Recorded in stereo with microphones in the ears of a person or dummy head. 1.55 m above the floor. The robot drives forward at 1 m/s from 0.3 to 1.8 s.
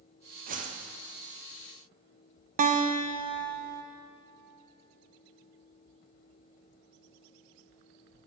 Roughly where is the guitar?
Right.